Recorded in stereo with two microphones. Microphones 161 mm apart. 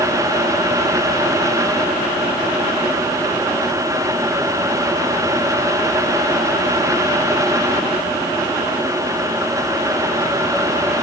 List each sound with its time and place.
Only background noise.